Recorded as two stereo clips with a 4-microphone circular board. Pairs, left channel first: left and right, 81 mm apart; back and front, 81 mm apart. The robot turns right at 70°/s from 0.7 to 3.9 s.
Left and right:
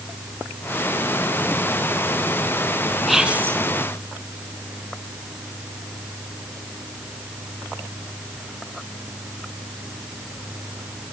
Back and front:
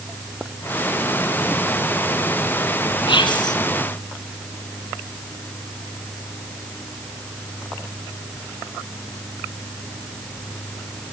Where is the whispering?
Straight behind, 3.5 m; by 3.6 s 145° right, 3.5 m.